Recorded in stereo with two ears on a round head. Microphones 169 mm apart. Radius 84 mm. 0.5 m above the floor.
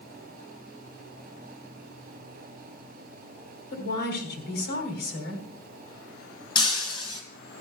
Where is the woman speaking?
55° left (ahead or behind), 3 m.